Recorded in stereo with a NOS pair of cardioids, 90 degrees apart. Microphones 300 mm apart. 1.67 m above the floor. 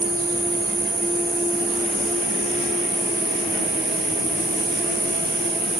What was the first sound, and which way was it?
An insect, 25° right.